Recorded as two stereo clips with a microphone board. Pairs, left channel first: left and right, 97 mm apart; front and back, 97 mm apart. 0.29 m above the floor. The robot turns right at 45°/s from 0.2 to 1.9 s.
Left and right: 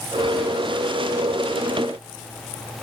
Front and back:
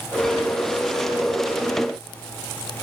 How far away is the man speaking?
I don't hear a man speaking.